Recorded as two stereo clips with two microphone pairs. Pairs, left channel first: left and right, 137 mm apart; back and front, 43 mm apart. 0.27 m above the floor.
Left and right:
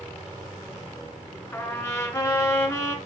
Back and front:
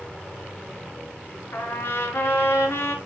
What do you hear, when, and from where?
1.5 s a trumpet: 160° left, 1.9 m